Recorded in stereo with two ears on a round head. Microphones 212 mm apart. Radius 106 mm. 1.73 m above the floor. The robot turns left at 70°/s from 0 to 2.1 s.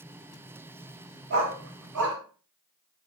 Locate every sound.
1.3 s a dog barking: 50° right (ahead or behind), 3.5 m; by 2.2 s 60° right (ahead or behind), 3.5 m